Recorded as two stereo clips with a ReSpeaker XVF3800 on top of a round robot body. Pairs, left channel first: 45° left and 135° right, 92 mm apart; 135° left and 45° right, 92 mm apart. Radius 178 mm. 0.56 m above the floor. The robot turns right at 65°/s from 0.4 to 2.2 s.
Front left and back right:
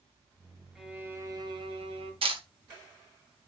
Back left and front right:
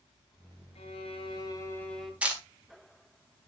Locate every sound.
0.8 s a violin: 135° left, 2 m; by 2.1 s 135° right, 2 m
2.2 s a camera shutter: 120° right, 2.5 m